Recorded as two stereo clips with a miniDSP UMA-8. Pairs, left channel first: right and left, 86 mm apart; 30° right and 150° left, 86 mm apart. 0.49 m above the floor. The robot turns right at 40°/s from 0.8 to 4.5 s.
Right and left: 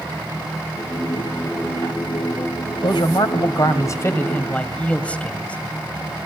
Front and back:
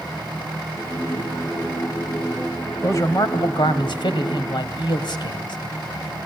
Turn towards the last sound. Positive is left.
turn(degrees=-15)